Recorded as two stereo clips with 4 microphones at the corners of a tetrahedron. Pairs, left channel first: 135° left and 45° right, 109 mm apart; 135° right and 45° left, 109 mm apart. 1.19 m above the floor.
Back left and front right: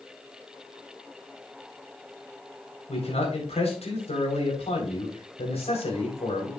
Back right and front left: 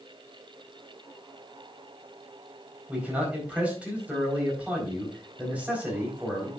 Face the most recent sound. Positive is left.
turn(degrees=125)